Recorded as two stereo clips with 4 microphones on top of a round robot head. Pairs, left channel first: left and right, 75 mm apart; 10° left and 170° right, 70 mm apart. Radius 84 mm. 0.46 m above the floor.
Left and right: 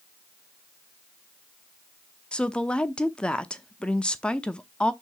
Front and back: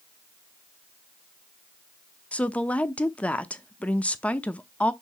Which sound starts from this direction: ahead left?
A woman speaking, at 2.3 s.